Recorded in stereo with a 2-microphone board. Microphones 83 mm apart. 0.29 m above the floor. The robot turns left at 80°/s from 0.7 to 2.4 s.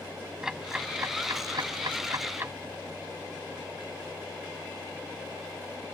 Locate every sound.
0.4 s ticking: 5° right (ahead or behind); by 2.5 s 30° right (ahead or behind)